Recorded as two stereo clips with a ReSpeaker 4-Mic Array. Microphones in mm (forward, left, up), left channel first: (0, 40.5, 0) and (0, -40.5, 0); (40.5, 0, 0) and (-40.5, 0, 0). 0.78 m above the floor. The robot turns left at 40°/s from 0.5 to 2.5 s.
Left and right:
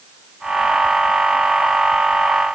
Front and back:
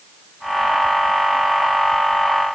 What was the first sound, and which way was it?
Only background noise.